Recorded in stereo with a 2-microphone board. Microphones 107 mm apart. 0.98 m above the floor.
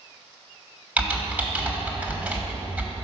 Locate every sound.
1.0 s typing on a keyboard: 15° right (ahead or behind), 1.1 m